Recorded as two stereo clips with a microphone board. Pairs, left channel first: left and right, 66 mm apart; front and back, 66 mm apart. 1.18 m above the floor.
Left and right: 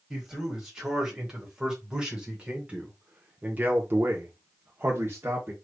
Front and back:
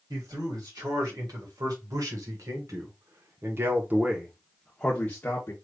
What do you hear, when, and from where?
0.1 s a man speaking: 175° right, 2.5 m; by 5.5 s 45° right, 1.0 m